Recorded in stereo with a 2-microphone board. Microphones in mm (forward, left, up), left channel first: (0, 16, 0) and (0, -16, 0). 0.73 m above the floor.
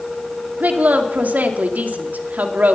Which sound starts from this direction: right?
A woman speaking, at 0.6 s.